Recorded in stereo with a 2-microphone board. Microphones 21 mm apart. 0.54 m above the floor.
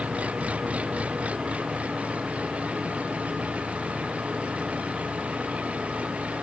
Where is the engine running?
80° right.